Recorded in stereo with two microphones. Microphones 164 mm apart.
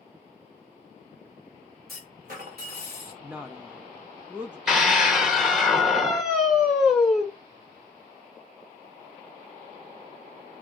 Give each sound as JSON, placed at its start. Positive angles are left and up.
{"t": 1.9, "sound": "a clunk", "side_deg": -65, "distance_m": 2.0}
{"t": 3.2, "sound": "a woman speaking", "side_deg": -10, "distance_m": 0.5}
{"t": 4.7, "sound": "a scream", "side_deg": 0, "distance_m": 1.0}